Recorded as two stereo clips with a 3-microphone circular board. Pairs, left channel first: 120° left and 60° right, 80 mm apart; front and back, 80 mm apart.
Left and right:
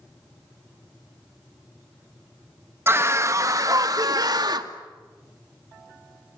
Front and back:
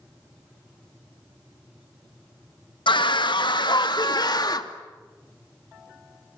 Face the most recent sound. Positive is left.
turn(degrees=-30)